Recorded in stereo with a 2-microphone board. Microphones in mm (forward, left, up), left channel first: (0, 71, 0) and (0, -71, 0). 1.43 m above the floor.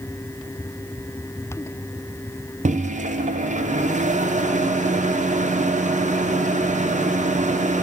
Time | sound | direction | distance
2.6 | a microwave | 60° right (ahead or behind) | 0.6 m